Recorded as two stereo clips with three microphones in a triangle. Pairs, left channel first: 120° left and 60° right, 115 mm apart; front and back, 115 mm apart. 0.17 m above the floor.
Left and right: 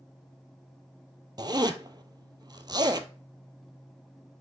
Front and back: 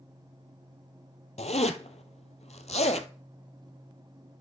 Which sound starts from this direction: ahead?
A zipper, at 1.4 s.